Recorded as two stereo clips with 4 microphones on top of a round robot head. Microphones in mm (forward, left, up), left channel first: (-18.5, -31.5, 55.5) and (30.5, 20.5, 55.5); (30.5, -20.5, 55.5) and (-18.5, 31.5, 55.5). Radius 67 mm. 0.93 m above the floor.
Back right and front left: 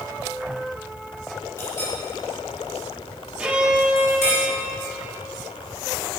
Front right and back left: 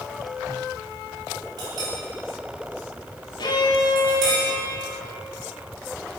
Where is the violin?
30° right, 1.7 m.